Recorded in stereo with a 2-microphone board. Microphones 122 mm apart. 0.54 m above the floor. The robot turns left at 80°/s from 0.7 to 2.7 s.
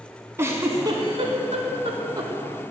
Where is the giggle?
25° right (ahead or behind), 1.0 m.